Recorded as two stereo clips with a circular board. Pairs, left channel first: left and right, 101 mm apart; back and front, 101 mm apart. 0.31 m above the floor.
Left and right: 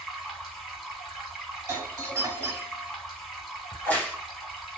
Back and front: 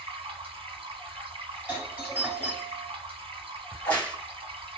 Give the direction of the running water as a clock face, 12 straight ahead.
12 o'clock.